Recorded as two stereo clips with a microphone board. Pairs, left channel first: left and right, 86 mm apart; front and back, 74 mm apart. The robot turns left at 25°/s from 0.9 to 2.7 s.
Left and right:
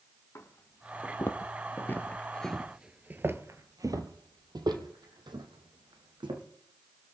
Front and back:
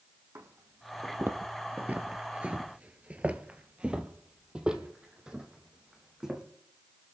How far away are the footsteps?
About 1.7 m.